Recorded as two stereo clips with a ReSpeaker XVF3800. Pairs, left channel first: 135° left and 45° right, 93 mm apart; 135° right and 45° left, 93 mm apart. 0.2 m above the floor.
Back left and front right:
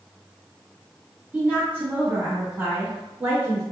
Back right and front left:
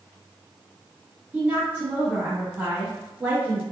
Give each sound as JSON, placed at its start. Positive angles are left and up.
{"t": 1.3, "sound": "a woman speaking", "azimuth_deg": 0, "distance_m": 1.2}